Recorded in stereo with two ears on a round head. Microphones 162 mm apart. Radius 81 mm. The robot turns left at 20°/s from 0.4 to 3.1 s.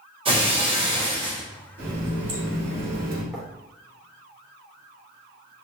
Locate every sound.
0.2 s breaking glass: 30° right (ahead or behind), 0.7 m
1.8 s a running tap: 55° right (ahead or behind), 1.1 m
3.3 s writing: centre (ahead or behind), 1.0 m